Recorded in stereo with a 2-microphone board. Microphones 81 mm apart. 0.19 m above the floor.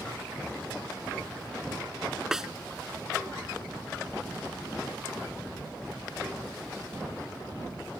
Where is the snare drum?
5° right (ahead or behind).